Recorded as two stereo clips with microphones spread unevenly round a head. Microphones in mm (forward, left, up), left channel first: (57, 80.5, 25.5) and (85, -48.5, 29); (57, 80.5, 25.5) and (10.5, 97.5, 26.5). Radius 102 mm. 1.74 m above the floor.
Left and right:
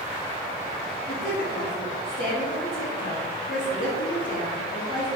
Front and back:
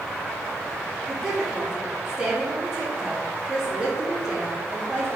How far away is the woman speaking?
About 4.5 m.